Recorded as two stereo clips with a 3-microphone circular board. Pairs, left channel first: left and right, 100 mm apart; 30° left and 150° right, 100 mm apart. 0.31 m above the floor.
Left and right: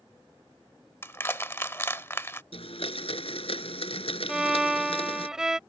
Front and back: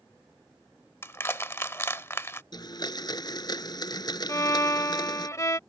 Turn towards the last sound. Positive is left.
turn(degrees=-10)